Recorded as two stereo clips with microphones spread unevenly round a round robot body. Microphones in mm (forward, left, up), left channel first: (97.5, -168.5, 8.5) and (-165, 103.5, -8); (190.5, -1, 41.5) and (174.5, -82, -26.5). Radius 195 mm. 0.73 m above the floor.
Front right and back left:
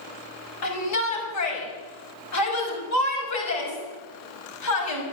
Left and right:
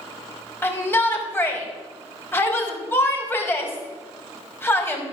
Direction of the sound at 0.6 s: 5° left.